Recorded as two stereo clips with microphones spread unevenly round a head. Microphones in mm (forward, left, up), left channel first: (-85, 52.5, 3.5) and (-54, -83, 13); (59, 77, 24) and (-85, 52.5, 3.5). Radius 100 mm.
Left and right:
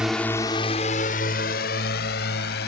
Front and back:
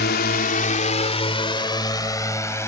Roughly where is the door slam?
No door slam in this recording.